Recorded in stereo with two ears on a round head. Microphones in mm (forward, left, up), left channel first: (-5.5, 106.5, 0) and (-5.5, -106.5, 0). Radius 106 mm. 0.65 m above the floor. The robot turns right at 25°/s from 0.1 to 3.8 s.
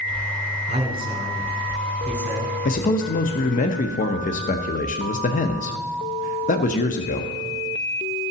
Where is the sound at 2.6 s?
35° left (ahead or behind), 0.7 m.